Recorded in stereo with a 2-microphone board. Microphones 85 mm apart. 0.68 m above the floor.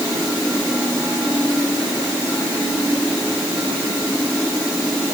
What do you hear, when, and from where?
Only background noise.